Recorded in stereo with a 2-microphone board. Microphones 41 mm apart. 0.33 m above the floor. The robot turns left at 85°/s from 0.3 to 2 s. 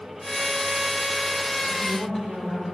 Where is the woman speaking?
35° right (ahead or behind), 4.5 m; by 2.6 s 10° right (ahead or behind), 4.5 m.